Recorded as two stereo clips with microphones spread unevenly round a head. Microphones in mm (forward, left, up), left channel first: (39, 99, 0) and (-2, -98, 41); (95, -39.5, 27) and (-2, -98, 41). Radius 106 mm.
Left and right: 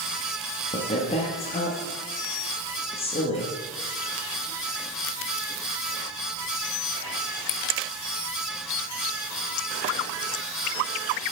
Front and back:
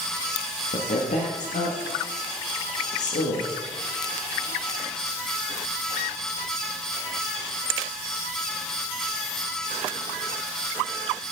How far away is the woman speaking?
About 1.2 m.